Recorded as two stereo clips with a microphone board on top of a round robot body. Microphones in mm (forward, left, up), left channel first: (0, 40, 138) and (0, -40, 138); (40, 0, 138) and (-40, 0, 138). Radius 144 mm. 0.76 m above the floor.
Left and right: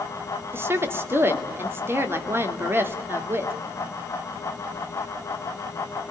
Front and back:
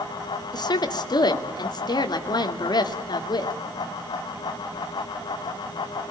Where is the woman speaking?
30° right, 2.5 m.